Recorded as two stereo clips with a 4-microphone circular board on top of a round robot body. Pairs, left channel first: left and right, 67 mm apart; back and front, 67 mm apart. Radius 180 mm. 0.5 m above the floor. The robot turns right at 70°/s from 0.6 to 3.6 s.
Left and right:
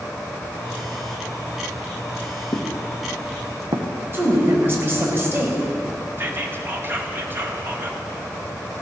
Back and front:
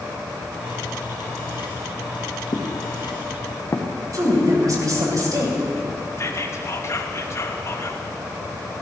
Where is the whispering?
140° right, 2 m.